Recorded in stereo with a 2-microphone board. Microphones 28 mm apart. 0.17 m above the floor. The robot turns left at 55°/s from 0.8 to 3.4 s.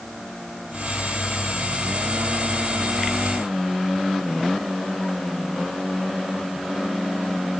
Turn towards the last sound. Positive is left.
No sound to turn to.